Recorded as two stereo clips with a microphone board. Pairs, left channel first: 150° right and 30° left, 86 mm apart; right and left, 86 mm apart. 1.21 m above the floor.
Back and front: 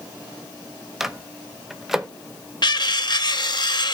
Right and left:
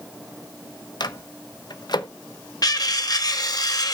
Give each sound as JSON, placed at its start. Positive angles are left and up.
{"t": 1.0, "sound": "a microwave", "azimuth_deg": -55, "distance_m": 0.8}
{"t": 2.6, "sound": "cutlery clinking", "azimuth_deg": -125, "distance_m": 0.9}